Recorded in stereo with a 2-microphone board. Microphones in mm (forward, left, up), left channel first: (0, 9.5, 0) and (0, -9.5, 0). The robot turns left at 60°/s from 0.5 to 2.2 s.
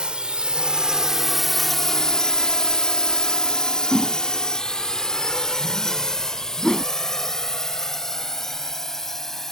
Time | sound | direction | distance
0.0 | a drone | 65° right (ahead or behind) | ?
3.9 | a whoosh | 45° left (ahead or behind) | ?